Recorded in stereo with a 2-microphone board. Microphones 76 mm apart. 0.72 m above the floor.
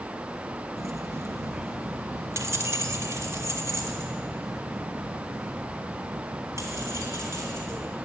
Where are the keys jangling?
40° right (ahead or behind), 0.6 m.